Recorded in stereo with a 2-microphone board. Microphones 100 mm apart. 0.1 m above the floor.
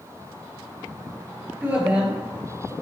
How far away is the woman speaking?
About 2.0 m.